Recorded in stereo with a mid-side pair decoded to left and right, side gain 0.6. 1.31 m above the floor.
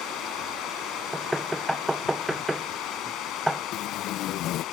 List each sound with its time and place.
0.0 s running water: 65° left
1.1 s knocking: straight ahead
3.7 s tape being pulled: 65° left